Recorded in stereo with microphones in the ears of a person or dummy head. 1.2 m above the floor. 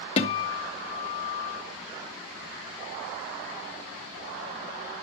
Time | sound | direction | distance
0.2 | a guitar | 35° left (ahead or behind) | 1.4 m